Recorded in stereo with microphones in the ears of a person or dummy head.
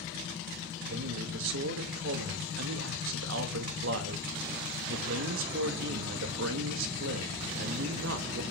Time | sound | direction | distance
0.9 | a man speaking | 70° right (ahead or behind) | 2.5 m